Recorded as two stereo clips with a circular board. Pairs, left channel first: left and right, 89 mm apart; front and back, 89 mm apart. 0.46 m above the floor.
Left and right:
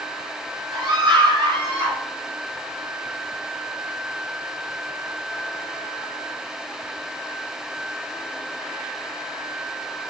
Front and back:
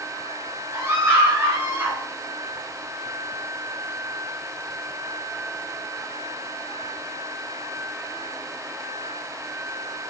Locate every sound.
0.7 s a scream: 120° right, 5.5 m; by 2.0 s 115° right, 5.5 m